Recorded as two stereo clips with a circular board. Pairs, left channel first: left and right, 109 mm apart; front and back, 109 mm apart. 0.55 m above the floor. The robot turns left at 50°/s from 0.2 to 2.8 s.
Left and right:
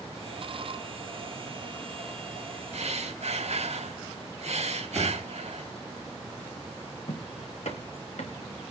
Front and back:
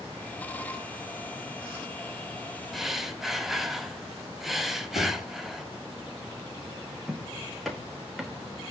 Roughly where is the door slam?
Ahead.